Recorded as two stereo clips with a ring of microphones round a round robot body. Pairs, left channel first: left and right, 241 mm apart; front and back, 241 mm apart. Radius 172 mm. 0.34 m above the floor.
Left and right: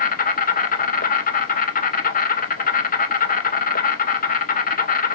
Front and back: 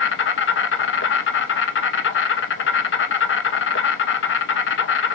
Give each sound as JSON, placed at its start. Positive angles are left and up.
{"t": 0.0, "sound": "an insect", "azimuth_deg": 35, "distance_m": 0.9}